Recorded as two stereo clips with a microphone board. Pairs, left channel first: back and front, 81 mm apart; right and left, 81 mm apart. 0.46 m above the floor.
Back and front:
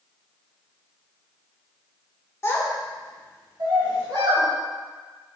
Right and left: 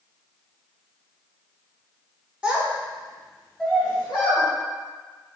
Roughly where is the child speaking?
Behind left.